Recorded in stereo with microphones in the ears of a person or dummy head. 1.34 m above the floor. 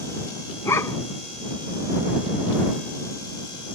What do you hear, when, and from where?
0.7 s a dog barking: 15° left (ahead or behind)